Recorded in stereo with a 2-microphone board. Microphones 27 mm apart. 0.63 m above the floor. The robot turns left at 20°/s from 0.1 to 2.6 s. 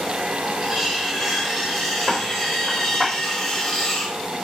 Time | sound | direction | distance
0.6 | cutlery clinking | 155° right | 0.8 m